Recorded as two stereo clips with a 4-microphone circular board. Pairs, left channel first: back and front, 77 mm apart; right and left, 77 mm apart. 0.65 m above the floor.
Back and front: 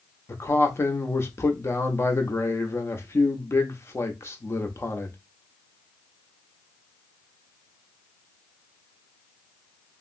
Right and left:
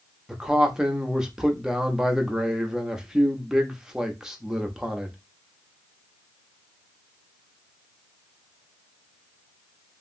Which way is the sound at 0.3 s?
165° left.